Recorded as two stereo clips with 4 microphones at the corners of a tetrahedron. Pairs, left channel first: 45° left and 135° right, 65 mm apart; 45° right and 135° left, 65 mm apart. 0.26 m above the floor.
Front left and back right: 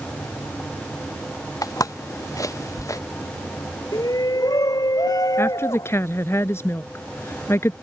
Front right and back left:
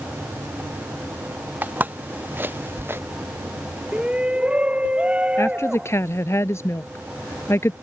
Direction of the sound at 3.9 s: 60° left.